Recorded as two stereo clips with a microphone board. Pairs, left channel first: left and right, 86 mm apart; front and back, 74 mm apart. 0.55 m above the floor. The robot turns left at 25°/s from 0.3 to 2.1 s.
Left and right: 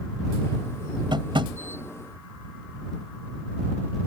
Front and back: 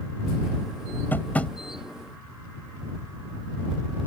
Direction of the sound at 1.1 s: 65° right.